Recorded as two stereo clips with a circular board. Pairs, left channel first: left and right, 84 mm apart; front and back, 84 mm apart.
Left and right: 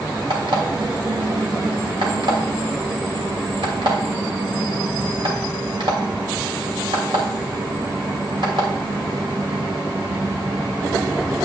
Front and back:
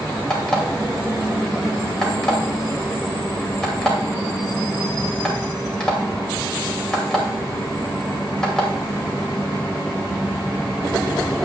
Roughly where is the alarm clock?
Right.